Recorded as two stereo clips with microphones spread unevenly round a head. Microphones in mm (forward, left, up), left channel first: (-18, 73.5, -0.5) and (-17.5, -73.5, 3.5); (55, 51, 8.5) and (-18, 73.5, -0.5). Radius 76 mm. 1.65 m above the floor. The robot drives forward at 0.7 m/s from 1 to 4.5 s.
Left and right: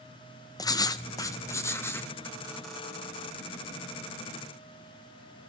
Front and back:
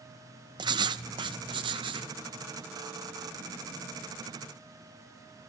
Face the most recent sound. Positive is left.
turn(degrees=170)